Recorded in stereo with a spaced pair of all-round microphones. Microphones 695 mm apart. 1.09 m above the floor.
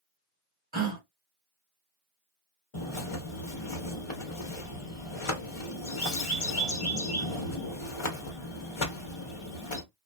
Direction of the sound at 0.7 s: 15° right (ahead or behind).